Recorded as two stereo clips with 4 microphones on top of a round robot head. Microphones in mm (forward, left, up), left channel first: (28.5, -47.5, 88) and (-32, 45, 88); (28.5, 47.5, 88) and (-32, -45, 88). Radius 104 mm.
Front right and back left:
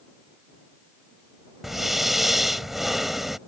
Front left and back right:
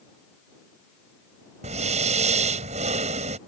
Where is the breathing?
150° right.